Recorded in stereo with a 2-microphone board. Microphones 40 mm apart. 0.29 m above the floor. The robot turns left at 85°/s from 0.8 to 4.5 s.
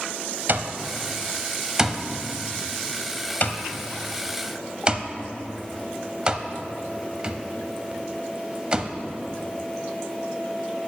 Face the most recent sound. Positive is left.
turn(degrees=-25)  # may be behind; listen again after turning